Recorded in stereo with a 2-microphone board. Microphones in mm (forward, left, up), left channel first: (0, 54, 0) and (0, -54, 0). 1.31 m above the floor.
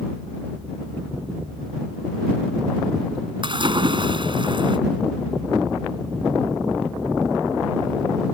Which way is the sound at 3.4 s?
50° right (ahead or behind).